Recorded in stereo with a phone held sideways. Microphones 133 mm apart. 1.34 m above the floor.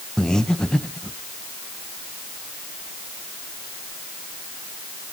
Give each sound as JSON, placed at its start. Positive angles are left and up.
{"t": 0.2, "sound": "breathing", "side_deg": 5, "distance_m": 0.9}